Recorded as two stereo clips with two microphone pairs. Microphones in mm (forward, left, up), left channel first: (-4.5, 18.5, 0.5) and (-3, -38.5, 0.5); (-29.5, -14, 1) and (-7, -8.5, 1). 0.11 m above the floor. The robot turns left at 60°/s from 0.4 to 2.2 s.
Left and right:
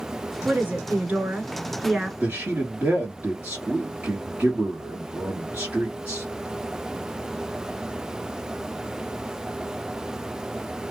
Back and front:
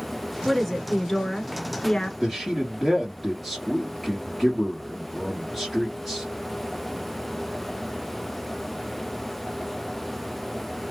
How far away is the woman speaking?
About 1.2 m.